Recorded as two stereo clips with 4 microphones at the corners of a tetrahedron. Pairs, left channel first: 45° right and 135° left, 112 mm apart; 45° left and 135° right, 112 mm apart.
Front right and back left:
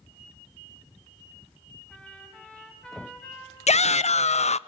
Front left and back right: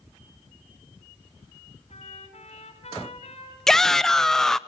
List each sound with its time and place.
1.9 s a trumpet: 40° left, 6 m
3.7 s a shout: 40° right, 0.5 m